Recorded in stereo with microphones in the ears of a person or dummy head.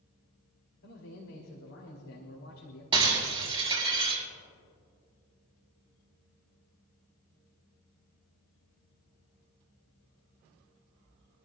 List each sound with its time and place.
0.8 s a man speaking: 70° left (ahead or behind), 3.5 m
2.9 s breaking glass: 30° right (ahead or behind), 5.5 m